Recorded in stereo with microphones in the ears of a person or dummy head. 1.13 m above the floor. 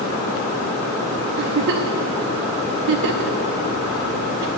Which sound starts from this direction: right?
A giggle, at 1.4 s.